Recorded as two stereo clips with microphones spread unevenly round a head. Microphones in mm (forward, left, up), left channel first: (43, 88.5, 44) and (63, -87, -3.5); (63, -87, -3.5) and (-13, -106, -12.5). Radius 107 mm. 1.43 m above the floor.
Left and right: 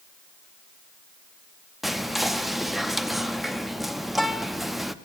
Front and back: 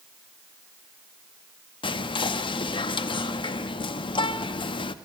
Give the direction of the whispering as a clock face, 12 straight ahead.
12 o'clock.